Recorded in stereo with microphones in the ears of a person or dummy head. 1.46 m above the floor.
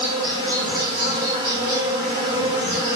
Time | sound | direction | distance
0.0 | an insect | 30° right (ahead or behind) | 1.1 m